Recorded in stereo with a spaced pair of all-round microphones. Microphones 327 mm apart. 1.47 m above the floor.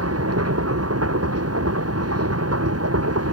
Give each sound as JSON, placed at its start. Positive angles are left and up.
{"t": 0.0, "sound": "a machine running", "side_deg": -45}